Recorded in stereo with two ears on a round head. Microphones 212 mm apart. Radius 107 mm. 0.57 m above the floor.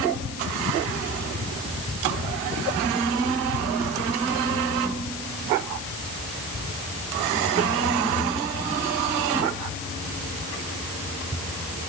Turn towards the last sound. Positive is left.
No sound to turn to.